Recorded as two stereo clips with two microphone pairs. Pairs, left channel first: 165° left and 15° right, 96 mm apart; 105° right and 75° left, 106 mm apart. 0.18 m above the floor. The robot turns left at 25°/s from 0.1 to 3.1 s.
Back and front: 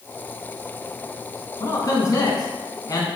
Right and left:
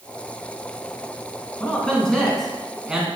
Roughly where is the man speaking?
Behind.